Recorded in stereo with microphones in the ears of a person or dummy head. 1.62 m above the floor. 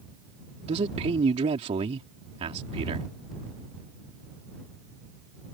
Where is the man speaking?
40° right (ahead or behind).